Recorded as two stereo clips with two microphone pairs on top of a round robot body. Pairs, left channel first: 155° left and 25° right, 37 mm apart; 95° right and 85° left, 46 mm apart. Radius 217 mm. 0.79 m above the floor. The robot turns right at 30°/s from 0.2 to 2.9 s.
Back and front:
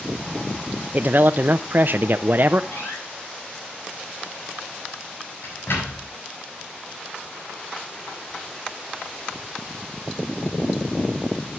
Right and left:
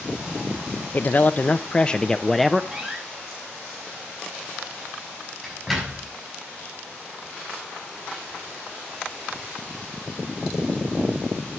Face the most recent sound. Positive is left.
turn(degrees=175)